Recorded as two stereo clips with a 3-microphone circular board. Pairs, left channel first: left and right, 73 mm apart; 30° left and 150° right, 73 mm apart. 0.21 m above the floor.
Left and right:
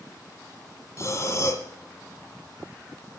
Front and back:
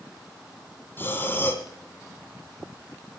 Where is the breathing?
75° left, 1.7 m.